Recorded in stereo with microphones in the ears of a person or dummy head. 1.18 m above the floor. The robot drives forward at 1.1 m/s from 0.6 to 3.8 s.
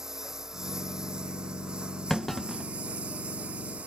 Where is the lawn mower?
Centre (ahead or behind); by 3.9 s 5° right (ahead or behind).